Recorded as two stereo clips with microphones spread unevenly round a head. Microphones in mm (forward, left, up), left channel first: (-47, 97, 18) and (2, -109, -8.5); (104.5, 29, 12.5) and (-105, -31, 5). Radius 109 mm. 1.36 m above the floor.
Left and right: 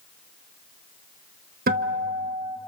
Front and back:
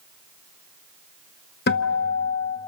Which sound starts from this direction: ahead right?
A guitar, at 1.7 s.